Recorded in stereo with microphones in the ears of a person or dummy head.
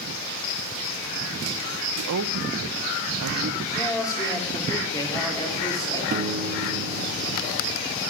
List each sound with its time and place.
2.0 s a woman speaking: 75° right (ahead or behind), 0.6 m
3.7 s a man speaking: 15° left (ahead or behind), 3.5 m
6.1 s a piano: 40° right (ahead or behind), 0.8 m